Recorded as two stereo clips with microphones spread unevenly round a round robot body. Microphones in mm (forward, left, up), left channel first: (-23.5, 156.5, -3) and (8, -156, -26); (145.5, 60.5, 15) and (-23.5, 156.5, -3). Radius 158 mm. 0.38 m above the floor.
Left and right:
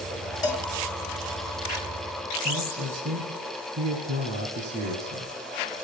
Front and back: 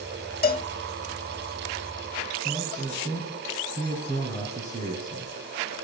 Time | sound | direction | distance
0.4 | a cowbell | 15° left | 0.8 m
2.5 | a man speaking | 150° right | 2.5 m